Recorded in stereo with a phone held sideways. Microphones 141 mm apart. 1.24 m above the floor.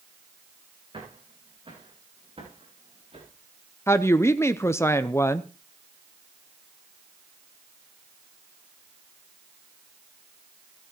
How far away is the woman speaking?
About 0.5 m.